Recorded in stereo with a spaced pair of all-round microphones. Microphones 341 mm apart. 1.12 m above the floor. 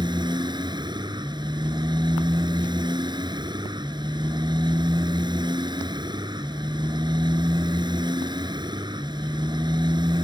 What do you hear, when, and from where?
0.0 s a motorcycle: 10° right (ahead or behind)